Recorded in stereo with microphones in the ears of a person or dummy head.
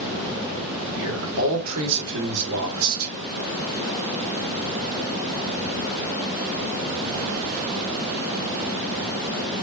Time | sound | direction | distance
0.9 | a man speaking | 85° right | 4 m